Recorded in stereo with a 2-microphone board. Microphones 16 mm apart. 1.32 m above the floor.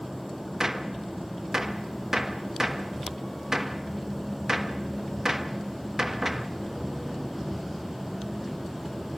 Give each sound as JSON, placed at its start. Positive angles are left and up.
{"t": 0.6, "sound": "a gunshot", "side_deg": -30, "distance_m": 1.2}